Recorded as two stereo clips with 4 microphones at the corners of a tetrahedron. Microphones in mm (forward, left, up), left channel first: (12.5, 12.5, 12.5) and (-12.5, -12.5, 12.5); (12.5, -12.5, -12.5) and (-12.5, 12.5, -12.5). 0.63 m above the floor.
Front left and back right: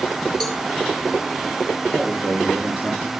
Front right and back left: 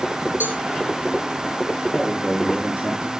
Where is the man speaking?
160° right, 9 m.